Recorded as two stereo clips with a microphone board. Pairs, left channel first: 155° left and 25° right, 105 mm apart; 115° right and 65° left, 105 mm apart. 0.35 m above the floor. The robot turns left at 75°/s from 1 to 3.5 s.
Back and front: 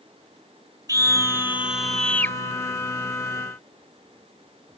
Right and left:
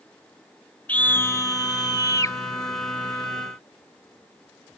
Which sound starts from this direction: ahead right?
A scream, at 0.9 s.